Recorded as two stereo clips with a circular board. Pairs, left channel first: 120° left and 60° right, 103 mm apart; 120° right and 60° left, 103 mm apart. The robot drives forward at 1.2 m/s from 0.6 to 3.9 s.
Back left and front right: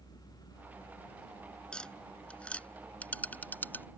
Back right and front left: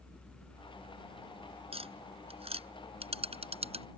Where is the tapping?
40° left; by 3.9 s 50° left.